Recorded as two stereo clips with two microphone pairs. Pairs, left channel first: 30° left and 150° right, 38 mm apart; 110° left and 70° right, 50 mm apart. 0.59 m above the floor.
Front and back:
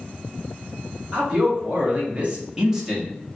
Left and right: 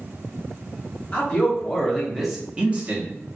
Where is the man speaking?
170° left, 1.3 m; by 3.1 s 65° right, 0.9 m.